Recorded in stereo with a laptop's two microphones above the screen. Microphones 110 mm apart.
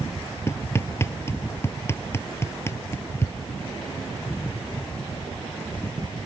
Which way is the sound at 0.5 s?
25° left (ahead or behind).